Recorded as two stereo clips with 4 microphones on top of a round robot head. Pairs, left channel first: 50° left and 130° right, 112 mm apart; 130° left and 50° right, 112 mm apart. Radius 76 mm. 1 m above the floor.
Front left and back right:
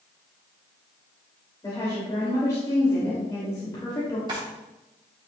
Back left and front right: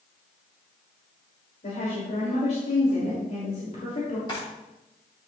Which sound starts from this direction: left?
A woman speaking, at 1.6 s.